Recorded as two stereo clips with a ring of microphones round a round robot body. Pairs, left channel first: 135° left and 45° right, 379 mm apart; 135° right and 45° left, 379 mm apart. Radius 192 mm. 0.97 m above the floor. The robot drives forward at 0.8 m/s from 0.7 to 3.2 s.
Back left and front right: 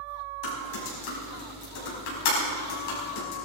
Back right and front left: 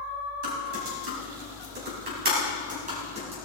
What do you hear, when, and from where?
0.4 s typing on a keyboard: 100° left, 5 m; by 3.3 s 120° left, 6 m